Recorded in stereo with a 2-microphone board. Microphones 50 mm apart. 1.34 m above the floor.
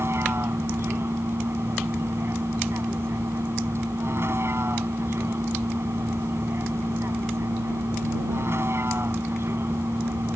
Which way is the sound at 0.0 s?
55° right (ahead or behind).